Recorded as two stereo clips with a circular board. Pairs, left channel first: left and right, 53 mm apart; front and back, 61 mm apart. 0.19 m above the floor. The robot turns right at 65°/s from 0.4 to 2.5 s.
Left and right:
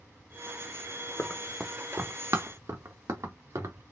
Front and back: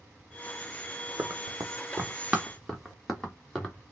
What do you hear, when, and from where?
1.2 s running footsteps: 145° left, 0.8 m; by 3.9 s 80° right, 2 m